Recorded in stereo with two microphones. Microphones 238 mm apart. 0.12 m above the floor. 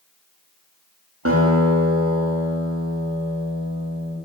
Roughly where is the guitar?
Right.